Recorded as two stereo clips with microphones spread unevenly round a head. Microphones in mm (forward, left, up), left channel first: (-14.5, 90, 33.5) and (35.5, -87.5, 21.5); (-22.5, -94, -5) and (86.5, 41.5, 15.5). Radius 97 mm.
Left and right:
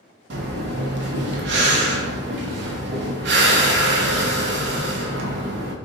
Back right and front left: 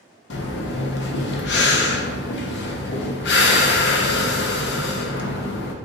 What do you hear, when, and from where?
0.3 s breathing: 110° right, 0.6 m